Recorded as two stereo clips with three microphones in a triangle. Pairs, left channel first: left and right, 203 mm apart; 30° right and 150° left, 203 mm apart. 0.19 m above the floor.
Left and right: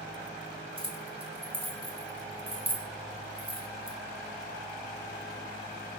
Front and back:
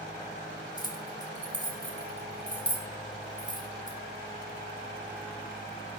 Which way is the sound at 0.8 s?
70° right.